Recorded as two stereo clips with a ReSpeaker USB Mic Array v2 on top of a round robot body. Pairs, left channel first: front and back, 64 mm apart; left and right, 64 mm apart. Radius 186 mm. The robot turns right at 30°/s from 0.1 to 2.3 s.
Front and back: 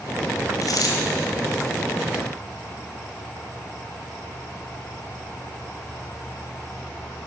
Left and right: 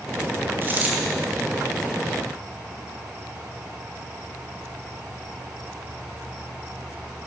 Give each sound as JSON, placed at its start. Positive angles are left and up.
{"t": 0.6, "sound": "a dropped coin", "azimuth_deg": -30, "distance_m": 1.7}